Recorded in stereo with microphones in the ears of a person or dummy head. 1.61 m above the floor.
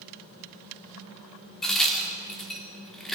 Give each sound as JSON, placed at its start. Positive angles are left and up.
{"t": 1.6, "sound": "a crack", "side_deg": 5, "distance_m": 4.0}